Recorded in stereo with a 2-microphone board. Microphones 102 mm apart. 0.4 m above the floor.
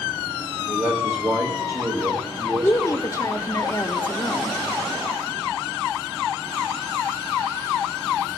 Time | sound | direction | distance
0.7 | a man speaking | 30° right (ahead or behind) | 1.6 m
2.6 | a woman speaking | 35° left (ahead or behind) | 1.0 m